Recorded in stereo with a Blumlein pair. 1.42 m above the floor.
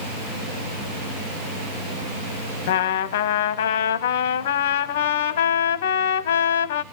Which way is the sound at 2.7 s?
55° left.